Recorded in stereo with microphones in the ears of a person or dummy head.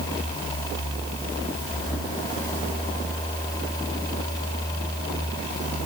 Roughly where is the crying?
I don't hear crying.